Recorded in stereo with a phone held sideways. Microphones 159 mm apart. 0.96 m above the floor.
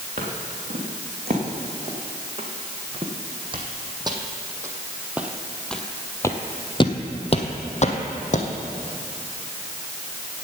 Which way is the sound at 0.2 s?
45° right (ahead or behind).